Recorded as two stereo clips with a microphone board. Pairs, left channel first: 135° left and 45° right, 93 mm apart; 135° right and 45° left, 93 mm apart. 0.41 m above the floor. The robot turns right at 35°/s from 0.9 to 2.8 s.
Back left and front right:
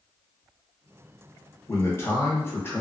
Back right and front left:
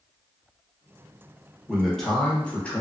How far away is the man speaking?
About 0.8 m.